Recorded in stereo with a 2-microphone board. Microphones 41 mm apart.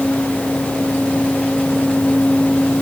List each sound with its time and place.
Only background noise.